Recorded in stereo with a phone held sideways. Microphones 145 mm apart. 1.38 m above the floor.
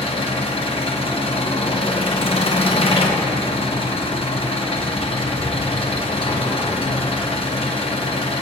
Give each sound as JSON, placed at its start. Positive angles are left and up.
{"t": 0.0, "sound": "an engine running", "side_deg": 45, "distance_m": 0.8}